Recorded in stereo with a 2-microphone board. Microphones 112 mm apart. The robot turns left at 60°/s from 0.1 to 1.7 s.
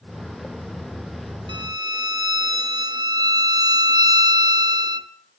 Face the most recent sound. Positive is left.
turn(degrees=-40)  # may be behind; listen again after turning